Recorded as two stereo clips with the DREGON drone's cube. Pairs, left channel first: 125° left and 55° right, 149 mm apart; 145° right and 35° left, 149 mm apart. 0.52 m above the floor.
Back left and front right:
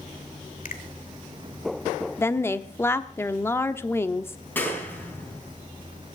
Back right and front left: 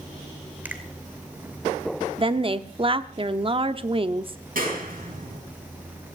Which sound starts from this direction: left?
A finger snap, at 0.7 s.